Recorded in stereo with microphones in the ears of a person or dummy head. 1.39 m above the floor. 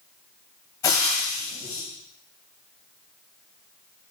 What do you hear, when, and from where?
0.8 s frying: 10° left (ahead or behind), 1.2 m